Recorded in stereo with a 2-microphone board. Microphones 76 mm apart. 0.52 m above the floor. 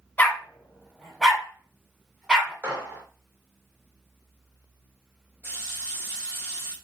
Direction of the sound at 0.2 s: 25° left (ahead or behind).